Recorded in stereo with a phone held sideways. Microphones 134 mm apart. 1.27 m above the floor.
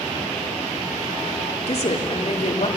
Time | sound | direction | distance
1.7 | a woman speaking | 50° left (ahead or behind) | 2.5 m